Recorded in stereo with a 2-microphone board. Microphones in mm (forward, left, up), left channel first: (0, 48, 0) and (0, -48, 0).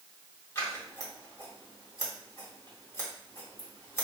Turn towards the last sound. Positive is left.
turn(degrees=30)  # may be behind; listen again after turning